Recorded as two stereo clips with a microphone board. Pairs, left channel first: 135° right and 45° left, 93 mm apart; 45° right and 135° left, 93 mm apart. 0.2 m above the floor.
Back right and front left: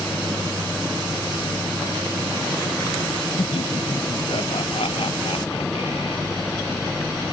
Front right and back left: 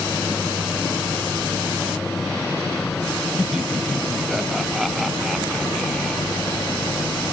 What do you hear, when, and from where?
3.4 s laughter: 140° right; by 7.2 s 130° right